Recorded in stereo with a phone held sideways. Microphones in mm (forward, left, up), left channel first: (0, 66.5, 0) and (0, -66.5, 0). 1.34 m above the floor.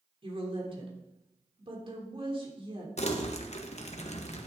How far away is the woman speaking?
About 3 m.